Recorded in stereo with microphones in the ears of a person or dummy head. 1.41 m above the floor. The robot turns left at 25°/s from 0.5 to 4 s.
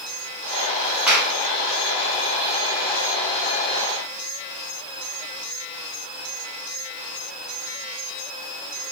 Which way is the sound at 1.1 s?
5° right (ahead or behind).